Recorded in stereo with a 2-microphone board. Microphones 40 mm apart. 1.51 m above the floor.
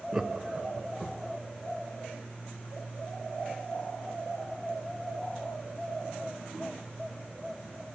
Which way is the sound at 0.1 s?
20° right (ahead or behind).